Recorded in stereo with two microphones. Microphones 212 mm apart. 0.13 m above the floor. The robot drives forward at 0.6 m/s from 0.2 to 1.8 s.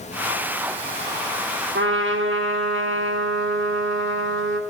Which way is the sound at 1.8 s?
65° right (ahead or behind).